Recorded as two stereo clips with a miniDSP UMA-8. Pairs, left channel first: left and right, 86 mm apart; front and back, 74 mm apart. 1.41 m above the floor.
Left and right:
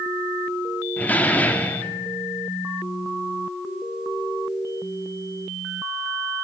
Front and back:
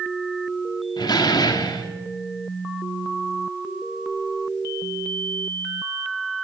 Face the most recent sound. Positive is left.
turn(degrees=20)